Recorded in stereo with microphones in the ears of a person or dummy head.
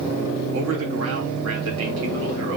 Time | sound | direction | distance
0.5 | a man speaking | 75° right (ahead or behind) | 3 m